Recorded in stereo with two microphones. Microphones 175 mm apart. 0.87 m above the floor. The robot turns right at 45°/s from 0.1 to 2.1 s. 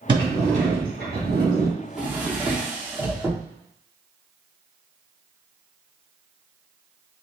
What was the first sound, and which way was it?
A sliding door, 150° right.